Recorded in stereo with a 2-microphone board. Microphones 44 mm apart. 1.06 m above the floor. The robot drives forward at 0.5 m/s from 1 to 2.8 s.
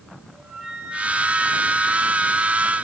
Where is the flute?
30° right (ahead or behind), 7.5 m.